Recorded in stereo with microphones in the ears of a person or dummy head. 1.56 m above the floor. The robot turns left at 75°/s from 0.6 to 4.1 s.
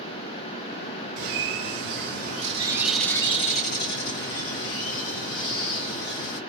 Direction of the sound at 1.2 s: 45° right.